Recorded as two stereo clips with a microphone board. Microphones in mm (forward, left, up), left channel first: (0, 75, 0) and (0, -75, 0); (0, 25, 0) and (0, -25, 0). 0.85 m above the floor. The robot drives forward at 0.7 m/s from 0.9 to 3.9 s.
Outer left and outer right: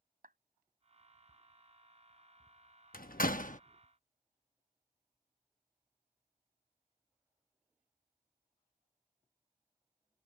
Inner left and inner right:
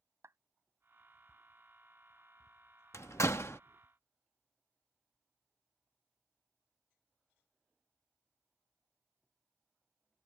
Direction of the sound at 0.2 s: 70° right (ahead or behind).